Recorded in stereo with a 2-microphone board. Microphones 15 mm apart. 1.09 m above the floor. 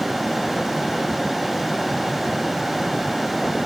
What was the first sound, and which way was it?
Only background noise.